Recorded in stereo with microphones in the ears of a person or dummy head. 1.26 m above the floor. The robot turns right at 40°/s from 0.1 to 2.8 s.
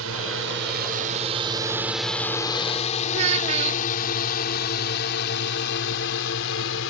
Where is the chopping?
No chopping in this recording.